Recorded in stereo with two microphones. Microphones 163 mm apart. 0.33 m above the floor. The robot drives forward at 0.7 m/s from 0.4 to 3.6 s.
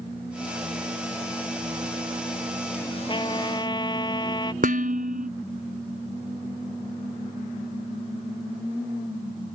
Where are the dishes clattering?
60° right (ahead or behind).